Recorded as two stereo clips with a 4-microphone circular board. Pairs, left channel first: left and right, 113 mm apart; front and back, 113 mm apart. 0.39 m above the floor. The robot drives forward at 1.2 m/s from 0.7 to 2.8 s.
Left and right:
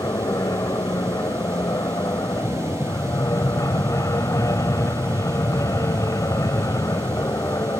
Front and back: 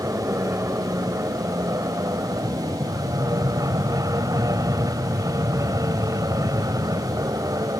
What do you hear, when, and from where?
0.0 s an aircraft: 130° left; by 7.8 s 135° left